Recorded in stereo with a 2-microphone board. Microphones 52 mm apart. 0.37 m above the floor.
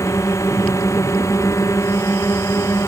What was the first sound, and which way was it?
A drone, 85° left.